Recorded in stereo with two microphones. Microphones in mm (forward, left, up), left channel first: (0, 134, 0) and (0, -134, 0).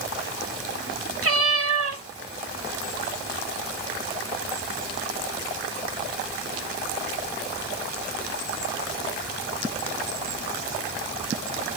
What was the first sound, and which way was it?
A cat meowing, 55° right (ahead or behind).